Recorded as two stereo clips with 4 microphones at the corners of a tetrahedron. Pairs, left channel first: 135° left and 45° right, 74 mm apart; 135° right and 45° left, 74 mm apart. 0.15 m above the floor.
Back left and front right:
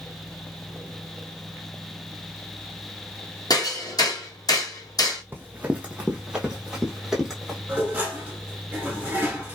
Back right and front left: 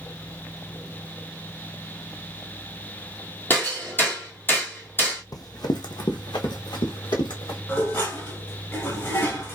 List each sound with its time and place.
3.5 s hammering: 160° left, 1.4 m
5.3 s running footsteps: 105° right, 0.5 m; by 7.6 s 135° right, 1.7 m
7.7 s dishes clattering: 95° right, 1.2 m